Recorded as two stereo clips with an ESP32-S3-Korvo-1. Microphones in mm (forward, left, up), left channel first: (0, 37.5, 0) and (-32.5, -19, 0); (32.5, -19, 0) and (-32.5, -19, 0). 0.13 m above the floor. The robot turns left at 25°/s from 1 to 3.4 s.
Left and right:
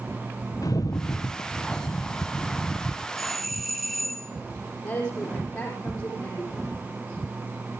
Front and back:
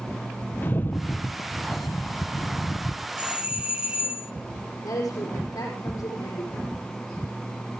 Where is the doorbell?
145° left, 1.5 m; by 4.3 s 140° left, 1.5 m.